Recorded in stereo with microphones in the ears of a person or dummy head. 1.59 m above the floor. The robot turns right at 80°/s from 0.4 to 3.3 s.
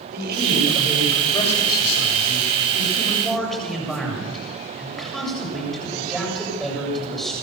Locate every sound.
0.1 s a man speaking: 55° right, 8 m; by 7.3 s straight behind, 8 m